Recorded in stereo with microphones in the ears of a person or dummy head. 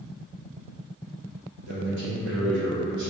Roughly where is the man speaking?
Right.